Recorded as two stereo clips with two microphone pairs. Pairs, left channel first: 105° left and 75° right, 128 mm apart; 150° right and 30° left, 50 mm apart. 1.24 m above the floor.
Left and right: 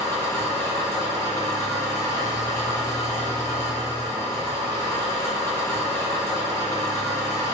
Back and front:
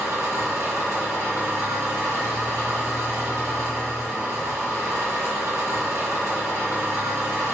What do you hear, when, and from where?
0.0 s an engine running: 40° left, 1.1 m